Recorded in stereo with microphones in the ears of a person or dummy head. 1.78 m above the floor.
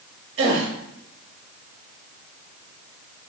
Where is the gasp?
75° right (ahead or behind), 0.8 m.